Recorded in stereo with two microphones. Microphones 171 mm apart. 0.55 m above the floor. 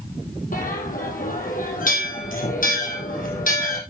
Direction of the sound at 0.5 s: 50° left (ahead or behind).